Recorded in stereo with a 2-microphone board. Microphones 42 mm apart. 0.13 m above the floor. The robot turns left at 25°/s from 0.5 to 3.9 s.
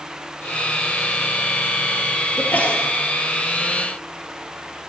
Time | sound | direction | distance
2.4 | a sneeze | 45° left (ahead or behind) | 2.5 m